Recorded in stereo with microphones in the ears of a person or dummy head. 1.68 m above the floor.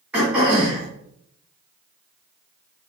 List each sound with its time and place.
0.1 s throat clearing: 10° right (ahead or behind), 1.9 m